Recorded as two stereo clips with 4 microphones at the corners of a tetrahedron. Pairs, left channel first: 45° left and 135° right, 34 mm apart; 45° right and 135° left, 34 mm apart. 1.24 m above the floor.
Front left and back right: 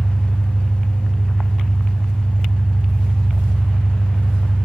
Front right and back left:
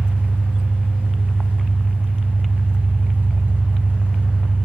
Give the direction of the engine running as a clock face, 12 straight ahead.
8 o'clock.